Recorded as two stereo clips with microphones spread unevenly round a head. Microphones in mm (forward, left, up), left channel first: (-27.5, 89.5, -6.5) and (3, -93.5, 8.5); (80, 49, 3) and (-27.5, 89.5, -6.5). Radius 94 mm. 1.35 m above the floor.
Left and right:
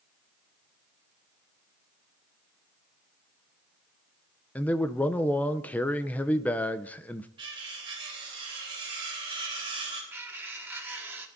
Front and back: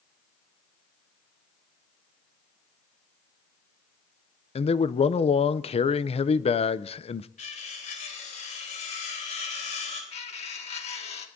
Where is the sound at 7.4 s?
15° right, 4 m.